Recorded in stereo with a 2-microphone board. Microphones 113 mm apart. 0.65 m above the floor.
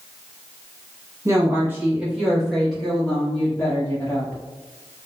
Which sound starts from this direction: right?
A woman speaking, at 1.2 s.